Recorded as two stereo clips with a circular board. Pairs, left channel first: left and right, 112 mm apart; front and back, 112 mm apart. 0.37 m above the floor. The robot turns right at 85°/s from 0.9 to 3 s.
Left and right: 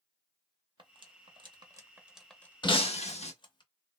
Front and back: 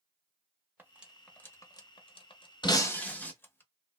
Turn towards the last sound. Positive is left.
turn(degrees=75)